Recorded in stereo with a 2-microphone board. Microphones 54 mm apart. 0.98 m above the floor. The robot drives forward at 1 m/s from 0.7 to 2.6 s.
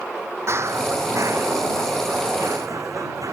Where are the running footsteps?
50° right (ahead or behind); by 3.4 s 75° right (ahead or behind).